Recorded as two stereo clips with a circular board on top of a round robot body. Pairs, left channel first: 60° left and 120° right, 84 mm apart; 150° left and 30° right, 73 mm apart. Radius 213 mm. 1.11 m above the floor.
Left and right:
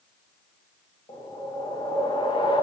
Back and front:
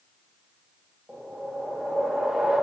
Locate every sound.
1.1 s a whoosh: 50° left, 1.9 m